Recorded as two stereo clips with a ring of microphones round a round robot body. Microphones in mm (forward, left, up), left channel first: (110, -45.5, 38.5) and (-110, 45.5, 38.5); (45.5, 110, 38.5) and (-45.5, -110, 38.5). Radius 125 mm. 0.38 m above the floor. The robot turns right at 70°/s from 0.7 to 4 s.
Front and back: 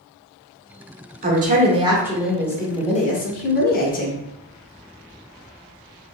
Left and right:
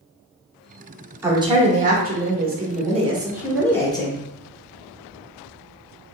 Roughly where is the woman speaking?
Behind.